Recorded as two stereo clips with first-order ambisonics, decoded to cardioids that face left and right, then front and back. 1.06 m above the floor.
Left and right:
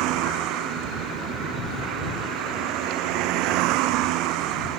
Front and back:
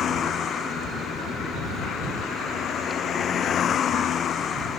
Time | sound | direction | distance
0.0 | a vehicle | 60° right | ?